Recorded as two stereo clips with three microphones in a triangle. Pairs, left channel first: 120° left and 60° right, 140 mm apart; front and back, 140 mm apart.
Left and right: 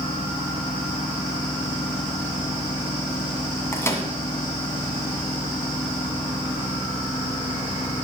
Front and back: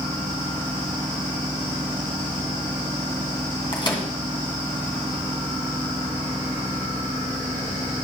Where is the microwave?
50° left, 2 m.